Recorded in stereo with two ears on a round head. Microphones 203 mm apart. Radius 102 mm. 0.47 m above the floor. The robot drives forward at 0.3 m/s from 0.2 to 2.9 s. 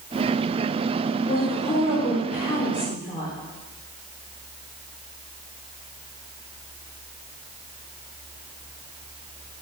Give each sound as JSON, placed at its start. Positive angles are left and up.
{"t": 1.3, "sound": "a woman speaking", "side_deg": 40, "distance_m": 1.0}